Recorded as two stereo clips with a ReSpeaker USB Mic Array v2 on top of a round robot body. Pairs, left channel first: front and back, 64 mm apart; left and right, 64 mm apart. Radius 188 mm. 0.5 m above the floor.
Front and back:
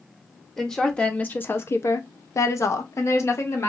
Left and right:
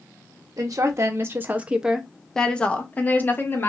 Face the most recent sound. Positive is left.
turn(degrees=40)